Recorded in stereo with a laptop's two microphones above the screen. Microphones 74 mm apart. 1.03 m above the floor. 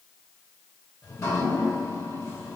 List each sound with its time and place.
1.0 s dripping: 45° left (ahead or behind), 1.9 m